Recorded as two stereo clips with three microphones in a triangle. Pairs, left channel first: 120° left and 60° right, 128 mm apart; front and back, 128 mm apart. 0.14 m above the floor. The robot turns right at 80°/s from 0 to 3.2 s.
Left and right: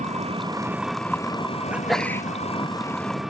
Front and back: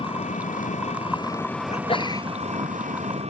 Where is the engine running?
45° right; by 3.3 s 150° right.